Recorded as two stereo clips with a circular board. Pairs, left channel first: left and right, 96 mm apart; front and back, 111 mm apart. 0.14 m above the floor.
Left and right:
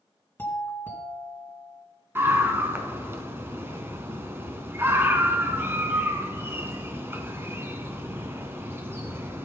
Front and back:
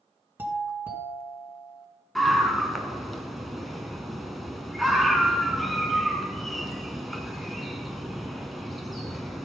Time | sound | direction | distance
0.4 | a doorbell | 130° left | 2.0 m
2.1 | a scream | 90° right | 1.1 m